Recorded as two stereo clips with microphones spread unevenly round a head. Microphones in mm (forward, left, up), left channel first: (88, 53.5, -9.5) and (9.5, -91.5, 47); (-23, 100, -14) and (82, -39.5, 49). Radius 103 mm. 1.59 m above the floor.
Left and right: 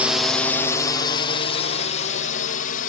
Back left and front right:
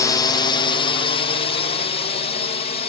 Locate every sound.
0.0 s a drone: 135° left; by 2.9 s 85° left